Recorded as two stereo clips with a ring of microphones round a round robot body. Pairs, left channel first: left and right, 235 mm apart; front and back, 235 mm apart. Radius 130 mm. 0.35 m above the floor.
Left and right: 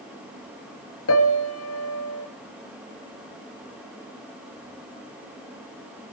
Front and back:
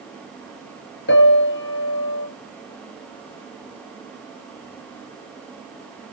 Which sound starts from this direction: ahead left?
A piano, at 1.1 s.